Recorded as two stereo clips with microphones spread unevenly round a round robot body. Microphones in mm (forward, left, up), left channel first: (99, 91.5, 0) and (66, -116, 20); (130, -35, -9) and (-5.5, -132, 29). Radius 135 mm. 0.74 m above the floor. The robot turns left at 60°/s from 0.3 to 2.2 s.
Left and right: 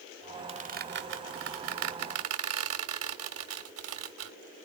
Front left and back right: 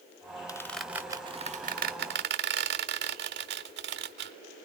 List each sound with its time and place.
0.5 s a squeak: 35° right, 1.4 m; by 4.3 s 140° right, 1.4 m